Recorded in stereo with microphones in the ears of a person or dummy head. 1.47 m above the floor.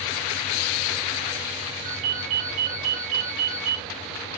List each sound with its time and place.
1.9 s a ringtone: 40° right (ahead or behind), 1.3 m